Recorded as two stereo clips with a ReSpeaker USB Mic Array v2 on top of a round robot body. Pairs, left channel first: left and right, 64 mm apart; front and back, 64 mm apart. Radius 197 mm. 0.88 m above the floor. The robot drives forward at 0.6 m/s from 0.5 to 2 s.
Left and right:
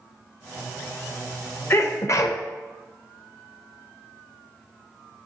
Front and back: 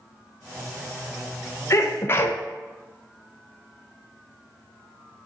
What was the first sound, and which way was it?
A sneeze, 45° left.